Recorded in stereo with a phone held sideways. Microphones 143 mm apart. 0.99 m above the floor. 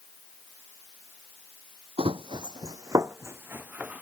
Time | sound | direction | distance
2.0 | running footsteps | 40° right (ahead or behind) | ?